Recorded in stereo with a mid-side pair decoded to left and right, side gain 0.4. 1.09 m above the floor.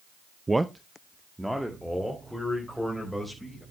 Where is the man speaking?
20° right, 0.6 m; by 3.6 s straight ahead, 5.5 m.